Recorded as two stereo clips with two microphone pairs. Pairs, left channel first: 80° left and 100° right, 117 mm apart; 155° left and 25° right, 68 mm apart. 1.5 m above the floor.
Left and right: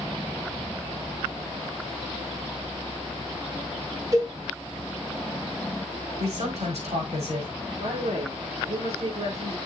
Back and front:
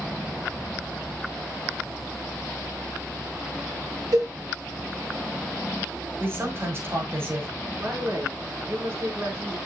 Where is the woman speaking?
80° right, 5 m.